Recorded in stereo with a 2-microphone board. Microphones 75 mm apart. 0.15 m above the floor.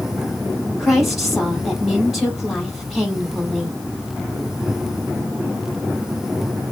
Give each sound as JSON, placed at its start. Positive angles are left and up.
{"t": 0.8, "sound": "a woman speaking", "side_deg": 0, "distance_m": 3.5}